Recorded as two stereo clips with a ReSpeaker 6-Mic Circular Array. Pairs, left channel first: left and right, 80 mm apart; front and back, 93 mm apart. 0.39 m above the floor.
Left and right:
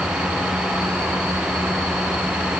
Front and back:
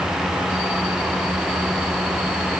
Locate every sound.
Only background noise.